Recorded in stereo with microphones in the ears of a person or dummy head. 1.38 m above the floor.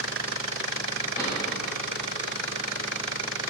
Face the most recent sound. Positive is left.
turn(degrees=15)  # may be behind; listen again after turning